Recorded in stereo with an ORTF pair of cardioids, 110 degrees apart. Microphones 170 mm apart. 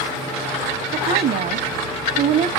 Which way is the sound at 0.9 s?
65° right.